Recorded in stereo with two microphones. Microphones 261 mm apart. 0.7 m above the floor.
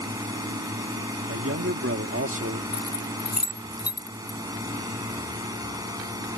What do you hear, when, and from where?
0.0 s a drone: 15° right (ahead or behind)
1.3 s a man speaking: 55° right (ahead or behind)
2.7 s keys jangling: 70° left (ahead or behind)